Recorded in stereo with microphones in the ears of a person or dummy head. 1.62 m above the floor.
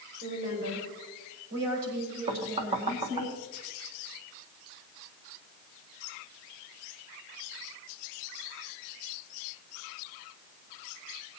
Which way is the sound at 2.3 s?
25° right (ahead or behind).